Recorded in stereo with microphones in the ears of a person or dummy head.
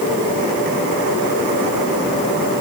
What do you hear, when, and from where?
Only background noise.